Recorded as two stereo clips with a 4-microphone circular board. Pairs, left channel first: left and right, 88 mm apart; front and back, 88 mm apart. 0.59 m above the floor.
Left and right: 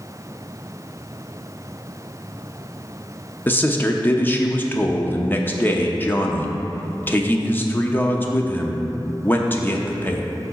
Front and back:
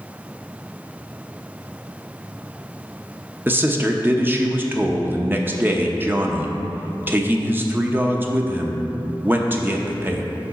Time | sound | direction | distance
3.5 | a man speaking | 135° left | 0.7 m